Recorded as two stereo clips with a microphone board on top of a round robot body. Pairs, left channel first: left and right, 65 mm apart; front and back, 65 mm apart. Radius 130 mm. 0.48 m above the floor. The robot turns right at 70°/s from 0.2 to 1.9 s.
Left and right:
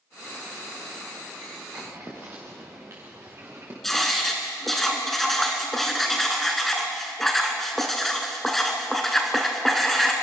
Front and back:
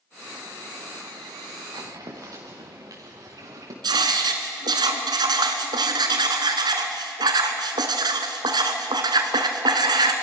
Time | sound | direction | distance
1.7 | footsteps | 165° right | 3.5 m
3.8 | writing | 175° left | 1.0 m